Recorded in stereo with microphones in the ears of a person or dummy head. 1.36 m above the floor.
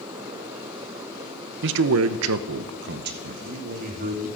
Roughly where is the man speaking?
Right.